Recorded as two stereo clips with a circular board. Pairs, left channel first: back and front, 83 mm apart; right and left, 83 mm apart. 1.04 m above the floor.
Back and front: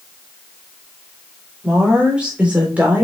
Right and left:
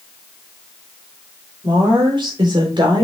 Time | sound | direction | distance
1.6 | a woman speaking | 80° left | 4 m